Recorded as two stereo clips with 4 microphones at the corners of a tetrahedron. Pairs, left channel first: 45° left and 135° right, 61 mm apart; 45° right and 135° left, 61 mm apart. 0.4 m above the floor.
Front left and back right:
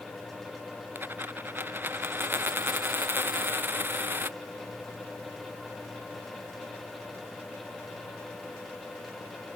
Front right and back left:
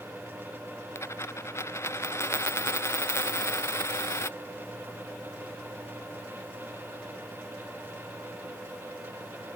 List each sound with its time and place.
0.9 s a dropped coin: 85° right